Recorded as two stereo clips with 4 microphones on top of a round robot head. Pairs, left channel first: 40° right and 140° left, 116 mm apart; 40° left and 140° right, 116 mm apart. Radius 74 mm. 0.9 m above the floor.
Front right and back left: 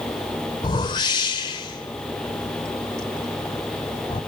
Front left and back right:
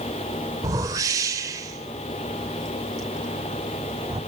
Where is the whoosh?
85° right, 0.7 m.